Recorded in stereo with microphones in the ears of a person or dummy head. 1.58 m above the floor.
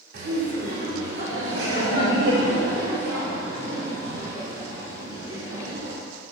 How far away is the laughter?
About 2.5 m.